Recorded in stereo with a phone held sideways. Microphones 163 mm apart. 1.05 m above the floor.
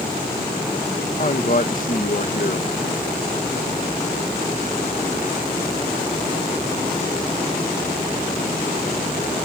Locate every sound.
1.2 s a man speaking: 60° left (ahead or behind)